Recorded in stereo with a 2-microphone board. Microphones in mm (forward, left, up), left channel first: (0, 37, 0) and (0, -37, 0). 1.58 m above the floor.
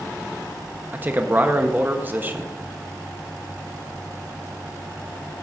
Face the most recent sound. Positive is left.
turn(degrees=-30)  # may be behind; listen again after turning